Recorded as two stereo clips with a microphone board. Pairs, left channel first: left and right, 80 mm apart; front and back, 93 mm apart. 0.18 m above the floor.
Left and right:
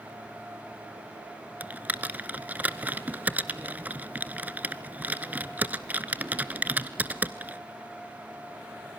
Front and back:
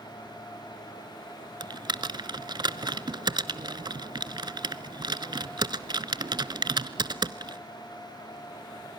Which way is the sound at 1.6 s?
155° right.